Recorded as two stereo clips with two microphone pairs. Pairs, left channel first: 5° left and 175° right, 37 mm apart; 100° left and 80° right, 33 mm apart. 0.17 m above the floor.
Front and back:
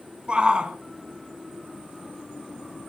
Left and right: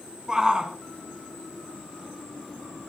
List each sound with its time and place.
0.3 s a shout: 135° right, 1.8 m